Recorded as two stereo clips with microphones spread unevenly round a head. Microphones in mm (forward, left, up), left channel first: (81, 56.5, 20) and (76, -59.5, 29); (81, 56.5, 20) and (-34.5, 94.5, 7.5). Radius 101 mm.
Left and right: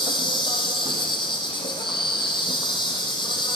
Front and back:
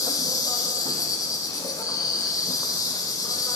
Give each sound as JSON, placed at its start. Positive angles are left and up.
{"t": 0.0, "sound": "an insect", "azimuth_deg": 40, "distance_m": 3.0}